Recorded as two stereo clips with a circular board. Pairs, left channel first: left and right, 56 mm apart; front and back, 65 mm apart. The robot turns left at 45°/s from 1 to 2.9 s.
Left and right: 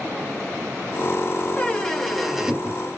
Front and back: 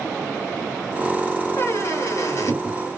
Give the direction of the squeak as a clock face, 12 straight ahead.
11 o'clock.